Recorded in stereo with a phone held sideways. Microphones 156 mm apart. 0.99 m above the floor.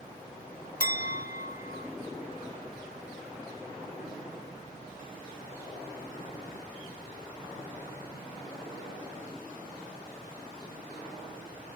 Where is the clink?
65° left (ahead or behind), 0.5 m.